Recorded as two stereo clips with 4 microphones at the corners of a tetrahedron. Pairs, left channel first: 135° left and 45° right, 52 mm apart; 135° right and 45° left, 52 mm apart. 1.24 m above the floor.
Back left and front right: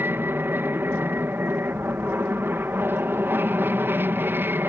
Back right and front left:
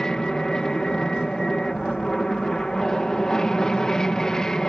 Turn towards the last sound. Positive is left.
turn(degrees=-60)